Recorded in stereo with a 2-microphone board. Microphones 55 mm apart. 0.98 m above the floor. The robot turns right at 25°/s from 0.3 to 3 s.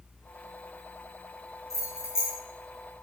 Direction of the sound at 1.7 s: 60° left (ahead or behind).